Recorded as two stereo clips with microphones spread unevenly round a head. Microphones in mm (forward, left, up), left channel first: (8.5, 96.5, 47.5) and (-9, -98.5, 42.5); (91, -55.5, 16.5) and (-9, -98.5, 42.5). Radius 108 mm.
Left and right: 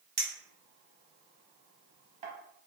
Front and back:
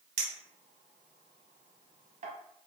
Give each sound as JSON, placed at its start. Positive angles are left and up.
{"t": 0.2, "sound": "a clink", "azimuth_deg": -150, "distance_m": 0.8}